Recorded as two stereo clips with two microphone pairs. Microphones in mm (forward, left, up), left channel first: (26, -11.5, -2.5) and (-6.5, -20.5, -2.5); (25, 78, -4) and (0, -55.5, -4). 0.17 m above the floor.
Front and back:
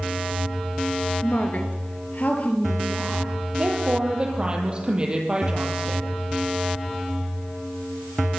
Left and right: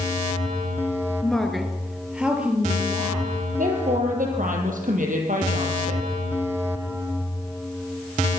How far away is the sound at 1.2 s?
About 2.5 m.